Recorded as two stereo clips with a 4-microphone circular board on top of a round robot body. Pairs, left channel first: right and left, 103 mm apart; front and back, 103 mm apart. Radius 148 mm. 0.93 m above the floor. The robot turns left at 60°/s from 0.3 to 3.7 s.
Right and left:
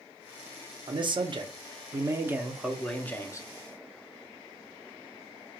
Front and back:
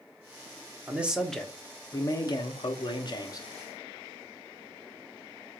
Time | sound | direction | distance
0.9 | a man speaking | 110° left | 1.0 m